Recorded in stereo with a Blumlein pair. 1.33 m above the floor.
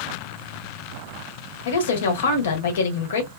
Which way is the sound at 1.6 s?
60° left.